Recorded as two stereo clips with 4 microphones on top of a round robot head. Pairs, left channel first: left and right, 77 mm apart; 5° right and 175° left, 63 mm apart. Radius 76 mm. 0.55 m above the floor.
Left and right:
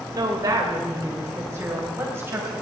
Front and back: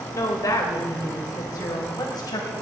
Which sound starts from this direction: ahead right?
A woman speaking, at 0.1 s.